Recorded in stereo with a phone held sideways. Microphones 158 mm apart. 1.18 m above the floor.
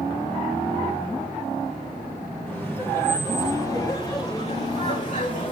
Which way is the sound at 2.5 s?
5° left (ahead or behind).